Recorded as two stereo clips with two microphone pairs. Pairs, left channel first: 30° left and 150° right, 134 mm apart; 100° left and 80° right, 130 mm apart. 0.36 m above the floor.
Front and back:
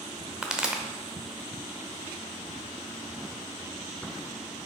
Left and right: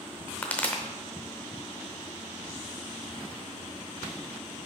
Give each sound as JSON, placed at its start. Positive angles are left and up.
{"t": 0.4, "sound": "a pop", "azimuth_deg": 145, "distance_m": 0.8}